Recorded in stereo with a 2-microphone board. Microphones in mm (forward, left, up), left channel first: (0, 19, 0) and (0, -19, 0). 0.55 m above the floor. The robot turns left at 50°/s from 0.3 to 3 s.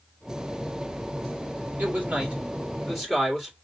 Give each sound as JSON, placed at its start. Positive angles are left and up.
{"t": 1.8, "sound": "a man speaking", "azimuth_deg": -110, "distance_m": 2.0}